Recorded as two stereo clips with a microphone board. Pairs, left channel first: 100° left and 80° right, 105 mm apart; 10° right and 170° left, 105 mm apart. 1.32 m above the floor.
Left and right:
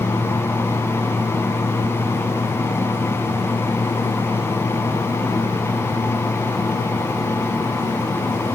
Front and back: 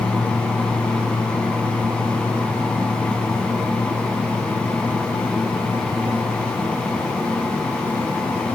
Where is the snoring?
No snoring in this recording.